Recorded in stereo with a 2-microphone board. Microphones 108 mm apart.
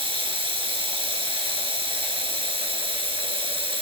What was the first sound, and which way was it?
Running water, 50° right (ahead or behind).